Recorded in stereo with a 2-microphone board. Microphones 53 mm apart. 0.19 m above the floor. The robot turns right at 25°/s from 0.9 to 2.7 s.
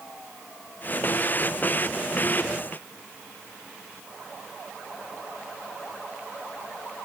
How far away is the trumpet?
No trumpet in this recording.